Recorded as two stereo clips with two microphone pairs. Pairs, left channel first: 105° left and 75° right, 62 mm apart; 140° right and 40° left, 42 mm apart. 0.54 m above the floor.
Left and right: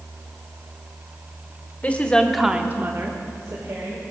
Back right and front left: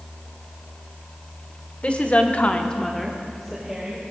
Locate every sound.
1.8 s a woman speaking: 165° left, 1.4 m; by 4.0 s 40° right, 2.5 m